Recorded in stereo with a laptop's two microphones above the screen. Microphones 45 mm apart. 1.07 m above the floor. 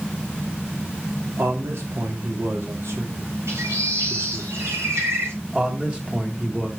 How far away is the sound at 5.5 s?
About 1.6 m.